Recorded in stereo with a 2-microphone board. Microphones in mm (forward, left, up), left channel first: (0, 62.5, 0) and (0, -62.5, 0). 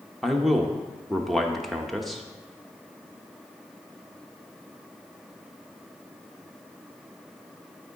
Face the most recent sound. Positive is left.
turn(degrees=0)  # may be behind; listen again after turning